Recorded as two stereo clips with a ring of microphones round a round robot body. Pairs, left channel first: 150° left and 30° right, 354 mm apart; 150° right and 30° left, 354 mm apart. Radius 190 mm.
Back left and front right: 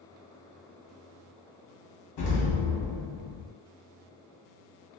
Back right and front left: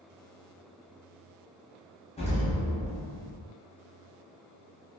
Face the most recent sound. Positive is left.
turn(degrees=145)